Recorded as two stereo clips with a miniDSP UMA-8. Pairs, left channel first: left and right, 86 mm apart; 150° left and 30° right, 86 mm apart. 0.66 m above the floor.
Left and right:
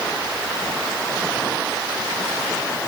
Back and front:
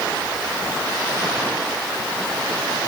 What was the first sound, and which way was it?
Only background noise.